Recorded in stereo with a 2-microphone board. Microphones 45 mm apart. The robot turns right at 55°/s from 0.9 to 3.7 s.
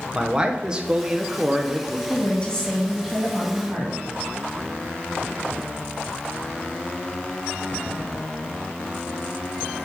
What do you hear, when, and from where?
0.1 s a man speaking: 20° right (ahead or behind), 0.7 m; by 2.0 s centre (ahead or behind), 0.7 m
2.1 s a woman speaking: 135° left, 2.5 m; by 4.0 s 135° right, 2.5 m